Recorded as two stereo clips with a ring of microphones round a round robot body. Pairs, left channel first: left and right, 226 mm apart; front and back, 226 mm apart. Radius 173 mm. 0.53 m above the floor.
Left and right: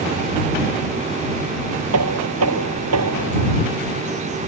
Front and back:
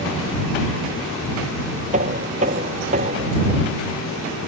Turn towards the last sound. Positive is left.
turn(degrees=-115)